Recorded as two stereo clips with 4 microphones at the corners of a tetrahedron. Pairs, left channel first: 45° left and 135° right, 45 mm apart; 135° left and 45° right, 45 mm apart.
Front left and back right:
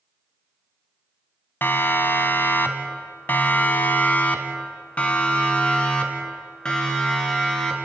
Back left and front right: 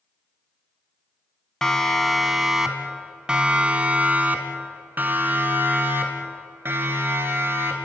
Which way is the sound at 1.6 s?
60° left.